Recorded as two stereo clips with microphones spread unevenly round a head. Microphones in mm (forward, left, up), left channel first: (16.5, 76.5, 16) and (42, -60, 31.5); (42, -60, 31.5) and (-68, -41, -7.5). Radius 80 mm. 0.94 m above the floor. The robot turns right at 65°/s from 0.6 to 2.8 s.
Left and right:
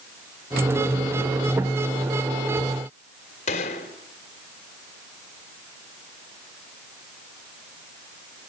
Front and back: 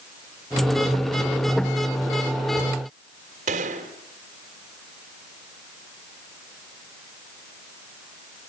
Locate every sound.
3.5 s a gunshot: 145° left, 2.5 m